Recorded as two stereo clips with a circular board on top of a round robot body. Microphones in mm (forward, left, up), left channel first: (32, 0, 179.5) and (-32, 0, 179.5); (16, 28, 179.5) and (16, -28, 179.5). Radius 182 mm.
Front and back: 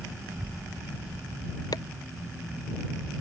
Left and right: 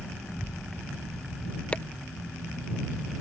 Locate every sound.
0.3 s a child speaking: 110° left; by 1.6 s 115° left
1.7 s chopping: 20° left